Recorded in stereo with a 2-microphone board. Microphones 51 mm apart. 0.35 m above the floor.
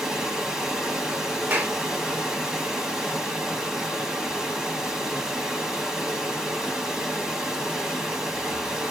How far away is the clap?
About 0.9 m.